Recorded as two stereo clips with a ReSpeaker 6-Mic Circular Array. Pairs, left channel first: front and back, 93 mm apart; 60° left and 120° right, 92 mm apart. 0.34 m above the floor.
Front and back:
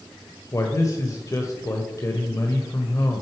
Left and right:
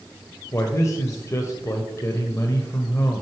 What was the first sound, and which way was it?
A man speaking, 25° left.